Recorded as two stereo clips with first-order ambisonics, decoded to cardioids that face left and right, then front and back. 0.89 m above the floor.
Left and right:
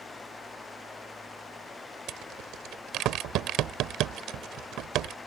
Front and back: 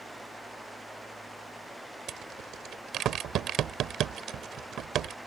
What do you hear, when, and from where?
2.1 s a rattle: 130° right